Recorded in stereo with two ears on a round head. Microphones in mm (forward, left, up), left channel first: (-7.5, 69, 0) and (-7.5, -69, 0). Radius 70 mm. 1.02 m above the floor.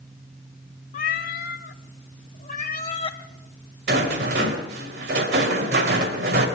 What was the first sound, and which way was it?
A cat meowing, 50° left (ahead or behind).